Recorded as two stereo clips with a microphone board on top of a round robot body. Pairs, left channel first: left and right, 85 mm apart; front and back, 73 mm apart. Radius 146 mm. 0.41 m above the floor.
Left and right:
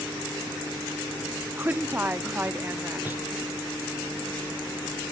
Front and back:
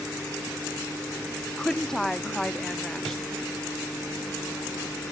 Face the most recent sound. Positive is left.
turn(degrees=-75)